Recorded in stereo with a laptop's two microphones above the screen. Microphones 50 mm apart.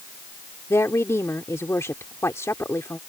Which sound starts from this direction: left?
A woman speaking, at 0.7 s.